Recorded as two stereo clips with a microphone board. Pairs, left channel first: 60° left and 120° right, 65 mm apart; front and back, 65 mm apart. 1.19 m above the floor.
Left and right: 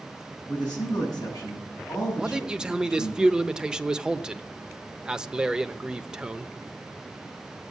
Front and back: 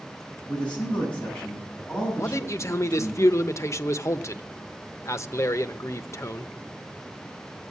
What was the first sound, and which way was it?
A man speaking, 70° left.